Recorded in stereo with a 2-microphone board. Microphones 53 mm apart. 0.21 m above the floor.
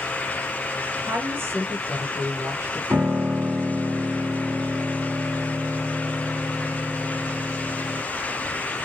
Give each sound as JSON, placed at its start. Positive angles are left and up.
{"t": 1.0, "sound": "a woman speaking", "side_deg": -50, "distance_m": 2.5}
{"t": 2.9, "sound": "a piano", "side_deg": -50, "distance_m": 2.0}